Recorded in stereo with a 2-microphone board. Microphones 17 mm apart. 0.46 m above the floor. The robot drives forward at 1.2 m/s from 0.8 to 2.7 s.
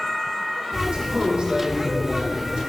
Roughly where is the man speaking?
Right.